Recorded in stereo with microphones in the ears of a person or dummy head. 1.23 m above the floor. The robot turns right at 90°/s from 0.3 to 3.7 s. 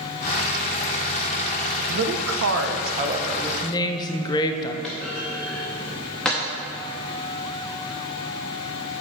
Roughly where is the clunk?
Centre.